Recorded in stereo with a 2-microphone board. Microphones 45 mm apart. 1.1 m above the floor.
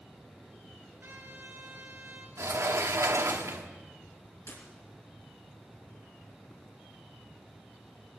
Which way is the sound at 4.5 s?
80° left.